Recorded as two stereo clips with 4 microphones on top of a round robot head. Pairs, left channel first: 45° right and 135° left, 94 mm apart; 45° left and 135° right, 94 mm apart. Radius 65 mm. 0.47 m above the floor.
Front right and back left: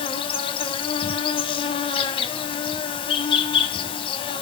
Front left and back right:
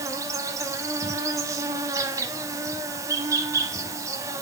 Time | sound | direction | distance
0.0 | an insect | 75° right | 1.2 m